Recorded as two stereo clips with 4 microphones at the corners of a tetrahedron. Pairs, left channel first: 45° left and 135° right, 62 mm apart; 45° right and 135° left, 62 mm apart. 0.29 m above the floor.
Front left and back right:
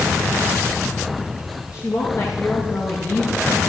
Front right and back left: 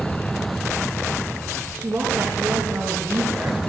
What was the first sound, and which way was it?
A woman speaking, 80° left.